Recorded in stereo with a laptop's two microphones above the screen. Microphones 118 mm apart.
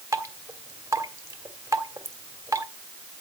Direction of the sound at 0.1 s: 25° right (ahead or behind).